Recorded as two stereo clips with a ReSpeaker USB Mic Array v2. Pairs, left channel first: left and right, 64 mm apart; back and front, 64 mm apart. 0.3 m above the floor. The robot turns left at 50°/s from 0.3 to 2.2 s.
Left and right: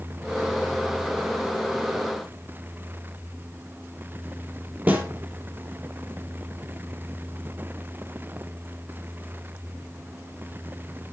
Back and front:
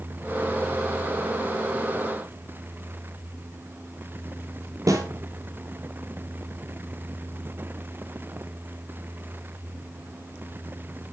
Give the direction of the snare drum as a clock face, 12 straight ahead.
1 o'clock.